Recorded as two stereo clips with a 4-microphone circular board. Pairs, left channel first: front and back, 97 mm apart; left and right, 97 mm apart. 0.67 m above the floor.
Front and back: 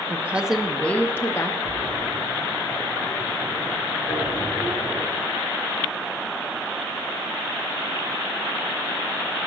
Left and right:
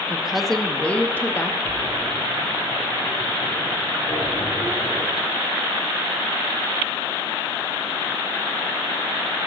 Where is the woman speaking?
160° right, 0.6 m; by 1.5 s 35° left, 0.8 m.